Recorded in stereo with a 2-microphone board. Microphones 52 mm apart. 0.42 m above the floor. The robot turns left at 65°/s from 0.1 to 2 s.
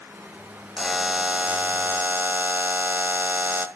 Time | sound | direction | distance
0.8 | a buzzer | 5° right | 1.0 m